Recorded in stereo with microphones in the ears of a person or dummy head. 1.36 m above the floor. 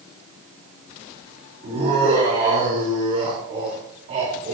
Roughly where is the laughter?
Right.